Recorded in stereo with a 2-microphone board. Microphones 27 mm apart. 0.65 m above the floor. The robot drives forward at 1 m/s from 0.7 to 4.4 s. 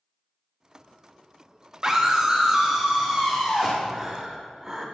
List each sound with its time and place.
1.8 s a scream: 20° right (ahead or behind), 1.1 m; by 3.8 s 10° right (ahead or behind), 2.5 m
3.9 s breathing: 25° right (ahead or behind), 2 m; by 4.9 s 30° right (ahead or behind), 1.8 m